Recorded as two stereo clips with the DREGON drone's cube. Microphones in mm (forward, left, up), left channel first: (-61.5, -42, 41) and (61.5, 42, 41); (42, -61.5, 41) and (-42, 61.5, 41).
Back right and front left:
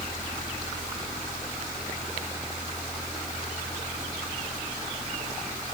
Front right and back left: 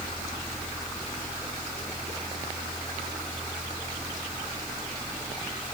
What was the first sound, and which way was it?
Only background noise.